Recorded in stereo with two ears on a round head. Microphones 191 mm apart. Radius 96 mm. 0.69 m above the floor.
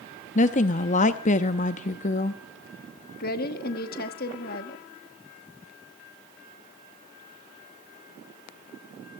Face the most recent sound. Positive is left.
turn(degrees=50)  # may be behind; listen again after turning